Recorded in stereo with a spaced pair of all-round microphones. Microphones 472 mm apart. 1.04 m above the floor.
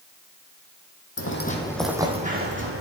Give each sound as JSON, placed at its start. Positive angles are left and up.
{"t": 1.2, "sound": "footsteps", "side_deg": 30, "distance_m": 1.7}